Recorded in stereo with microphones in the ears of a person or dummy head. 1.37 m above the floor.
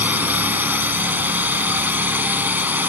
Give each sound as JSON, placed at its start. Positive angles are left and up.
{"t": 0.0, "sound": "a drone", "side_deg": -5}